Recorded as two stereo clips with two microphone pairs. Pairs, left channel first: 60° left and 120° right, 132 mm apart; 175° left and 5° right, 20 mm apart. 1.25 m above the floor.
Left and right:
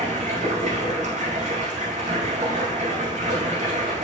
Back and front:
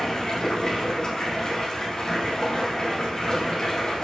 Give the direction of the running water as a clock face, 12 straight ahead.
5 o'clock.